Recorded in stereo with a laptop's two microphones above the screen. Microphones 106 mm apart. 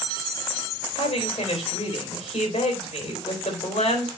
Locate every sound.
1.0 s a woman speaking: 75° left (ahead or behind), 3.5 m